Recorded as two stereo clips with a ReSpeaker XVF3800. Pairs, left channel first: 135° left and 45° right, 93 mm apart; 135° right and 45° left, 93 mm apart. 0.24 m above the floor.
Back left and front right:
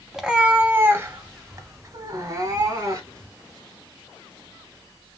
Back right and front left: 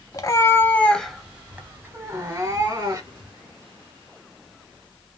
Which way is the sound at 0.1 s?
130° right.